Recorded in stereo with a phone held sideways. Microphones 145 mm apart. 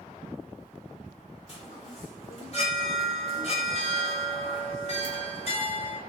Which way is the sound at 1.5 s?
45° left (ahead or behind).